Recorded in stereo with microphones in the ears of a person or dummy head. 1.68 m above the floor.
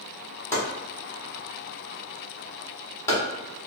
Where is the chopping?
15° left (ahead or behind), 1.1 m.